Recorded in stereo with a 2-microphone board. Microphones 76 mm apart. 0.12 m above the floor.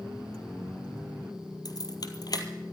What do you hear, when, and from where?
1.6 s keys jangling: 55° left (ahead or behind), 2 m